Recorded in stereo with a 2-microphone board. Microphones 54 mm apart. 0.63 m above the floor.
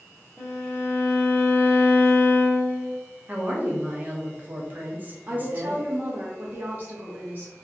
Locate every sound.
0.4 s a violin: 45° left (ahead or behind), 1.0 m
3.3 s a woman speaking: 35° right (ahead or behind), 0.7 m
5.3 s a woman speaking: 30° right (ahead or behind), 0.6 m